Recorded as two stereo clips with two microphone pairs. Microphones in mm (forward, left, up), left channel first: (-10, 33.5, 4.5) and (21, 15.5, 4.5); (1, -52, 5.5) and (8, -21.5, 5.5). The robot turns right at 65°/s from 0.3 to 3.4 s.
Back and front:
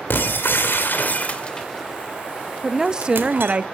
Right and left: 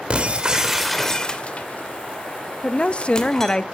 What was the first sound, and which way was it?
Breaking glass, 130° left.